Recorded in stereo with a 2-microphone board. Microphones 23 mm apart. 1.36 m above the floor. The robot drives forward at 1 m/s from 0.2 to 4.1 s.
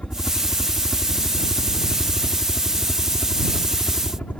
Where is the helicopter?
65° left (ahead or behind); by 4.4 s 70° left (ahead or behind).